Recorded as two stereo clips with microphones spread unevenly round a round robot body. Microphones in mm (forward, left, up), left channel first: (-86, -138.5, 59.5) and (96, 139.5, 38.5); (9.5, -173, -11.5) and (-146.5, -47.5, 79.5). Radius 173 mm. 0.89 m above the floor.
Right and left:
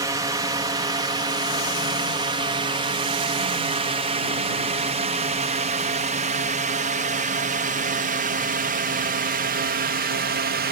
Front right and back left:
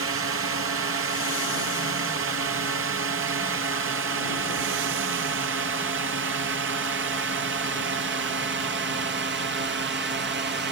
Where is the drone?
130° left; by 10.7 s 95° left.